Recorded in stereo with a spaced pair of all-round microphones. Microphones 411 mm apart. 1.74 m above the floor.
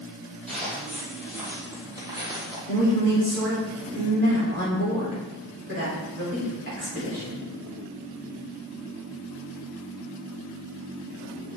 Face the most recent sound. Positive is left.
turn(degrees=-30)  # may be behind; listen again after turning